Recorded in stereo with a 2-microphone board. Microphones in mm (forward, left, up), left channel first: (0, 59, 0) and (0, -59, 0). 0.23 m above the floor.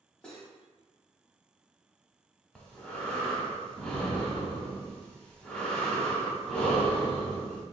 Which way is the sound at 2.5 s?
10° left (ahead or behind).